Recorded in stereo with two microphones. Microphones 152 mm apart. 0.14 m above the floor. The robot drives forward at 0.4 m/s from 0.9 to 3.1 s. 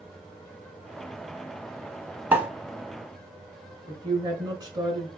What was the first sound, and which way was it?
A pop, 10° right (ahead or behind).